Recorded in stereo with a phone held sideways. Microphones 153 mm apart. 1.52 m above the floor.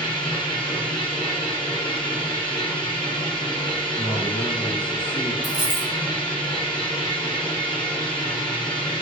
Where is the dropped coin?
65° left (ahead or behind), 2.5 m.